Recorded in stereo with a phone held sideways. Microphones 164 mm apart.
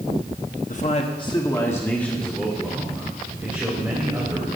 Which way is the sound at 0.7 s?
50° left (ahead or behind).